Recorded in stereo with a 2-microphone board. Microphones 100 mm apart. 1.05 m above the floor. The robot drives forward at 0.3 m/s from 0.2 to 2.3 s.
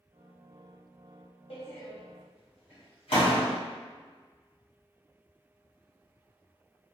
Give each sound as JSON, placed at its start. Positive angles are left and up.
{"t": 1.5, "sound": "a door slam", "side_deg": 75, "distance_m": 1.0}